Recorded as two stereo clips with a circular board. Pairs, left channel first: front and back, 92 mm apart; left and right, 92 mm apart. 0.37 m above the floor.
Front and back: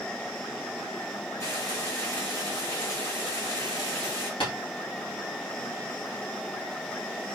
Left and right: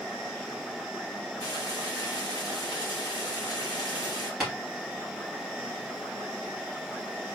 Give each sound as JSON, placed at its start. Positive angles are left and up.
{"t": 1.4, "sound": "frying", "azimuth_deg": 55, "distance_m": 1.9}
{"t": 4.4, "sound": "tapping", "azimuth_deg": 0, "distance_m": 2.5}